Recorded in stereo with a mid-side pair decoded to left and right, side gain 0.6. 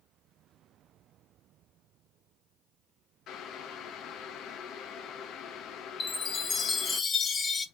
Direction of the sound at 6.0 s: 30° left.